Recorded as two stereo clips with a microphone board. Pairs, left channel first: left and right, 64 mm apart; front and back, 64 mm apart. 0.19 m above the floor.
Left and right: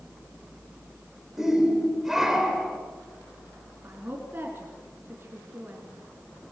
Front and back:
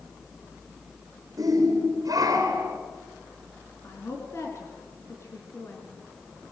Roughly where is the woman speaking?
Ahead right.